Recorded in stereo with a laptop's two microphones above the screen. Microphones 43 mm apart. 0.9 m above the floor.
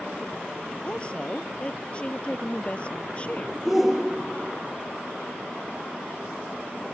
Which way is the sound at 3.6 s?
10° right (ahead or behind).